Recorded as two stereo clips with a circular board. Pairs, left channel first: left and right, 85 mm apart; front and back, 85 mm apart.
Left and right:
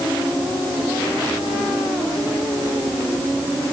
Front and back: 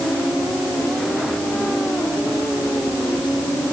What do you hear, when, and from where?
Only background noise.